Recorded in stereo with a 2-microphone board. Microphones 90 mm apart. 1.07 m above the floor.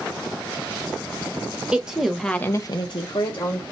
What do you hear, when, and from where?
1.7 s a woman speaking: 10° right (ahead or behind), 1.1 m; by 3.6 s 50° left (ahead or behind), 1.2 m